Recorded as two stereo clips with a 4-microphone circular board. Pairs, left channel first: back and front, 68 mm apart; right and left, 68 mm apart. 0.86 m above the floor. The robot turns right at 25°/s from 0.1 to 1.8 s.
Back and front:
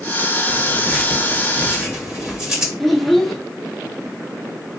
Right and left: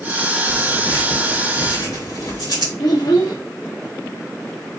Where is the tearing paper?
110° right, 2 m; by 2.7 s 75° right, 2 m.